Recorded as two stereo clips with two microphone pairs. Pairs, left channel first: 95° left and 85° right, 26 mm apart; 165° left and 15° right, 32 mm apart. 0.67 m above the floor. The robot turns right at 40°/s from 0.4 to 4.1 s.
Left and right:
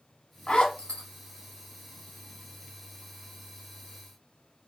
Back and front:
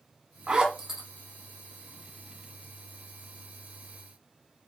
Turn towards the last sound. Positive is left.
turn(degrees=-170)